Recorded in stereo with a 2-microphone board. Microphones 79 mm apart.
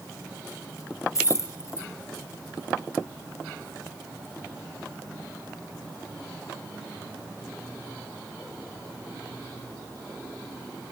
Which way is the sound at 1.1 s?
40° left (ahead or behind).